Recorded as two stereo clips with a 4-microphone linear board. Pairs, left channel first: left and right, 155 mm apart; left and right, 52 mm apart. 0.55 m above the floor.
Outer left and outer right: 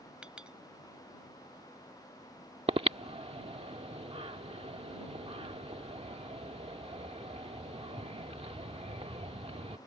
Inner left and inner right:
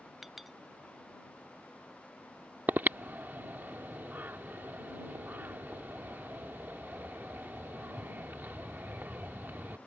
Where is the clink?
5° right (ahead or behind).